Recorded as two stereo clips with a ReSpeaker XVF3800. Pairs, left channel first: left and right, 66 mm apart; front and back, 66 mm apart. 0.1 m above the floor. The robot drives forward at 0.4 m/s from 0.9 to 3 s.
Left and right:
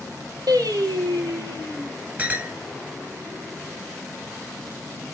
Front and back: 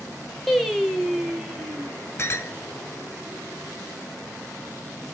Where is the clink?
35° right, 1.0 m; by 2.5 s 40° right, 0.9 m.